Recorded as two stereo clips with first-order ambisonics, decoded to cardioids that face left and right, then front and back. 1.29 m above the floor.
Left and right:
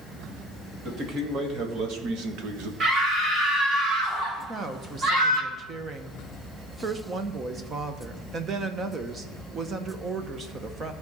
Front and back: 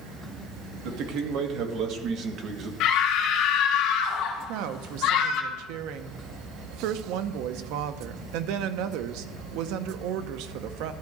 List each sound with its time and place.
0.8 s a man speaking: 150° right, 1.8 m; by 2.7 s 120° right, 1.2 m
2.8 s a scream: 25° right, 2 m
4.4 s a woman speaking: 155° right, 0.8 m